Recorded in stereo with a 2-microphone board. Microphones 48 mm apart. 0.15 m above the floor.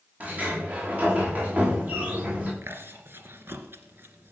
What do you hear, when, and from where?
0.2 s a sliding door: 30° right (ahead or behind), 9 m
2.6 s chewing: 50° right (ahead or behind), 2.5 m